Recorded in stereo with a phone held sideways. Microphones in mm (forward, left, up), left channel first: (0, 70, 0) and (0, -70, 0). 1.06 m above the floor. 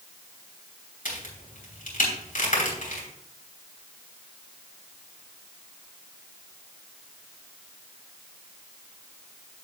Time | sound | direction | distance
1.1 | a crack | 75° left (ahead or behind) | 3 m